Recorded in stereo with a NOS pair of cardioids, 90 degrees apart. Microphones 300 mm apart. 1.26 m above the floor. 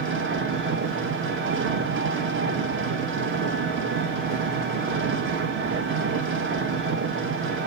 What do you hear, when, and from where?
0.0 s an engine running: 40° right, 1.4 m